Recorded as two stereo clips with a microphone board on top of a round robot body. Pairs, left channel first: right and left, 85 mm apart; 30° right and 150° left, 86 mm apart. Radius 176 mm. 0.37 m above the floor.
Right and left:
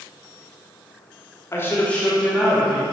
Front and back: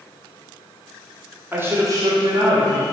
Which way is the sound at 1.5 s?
145° right.